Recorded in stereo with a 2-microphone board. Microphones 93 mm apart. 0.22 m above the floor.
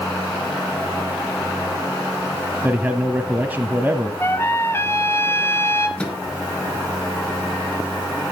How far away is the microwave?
About 3 m.